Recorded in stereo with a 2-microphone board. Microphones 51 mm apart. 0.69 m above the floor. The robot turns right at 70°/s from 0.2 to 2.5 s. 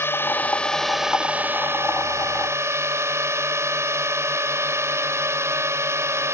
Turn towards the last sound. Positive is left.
turn(degrees=-70)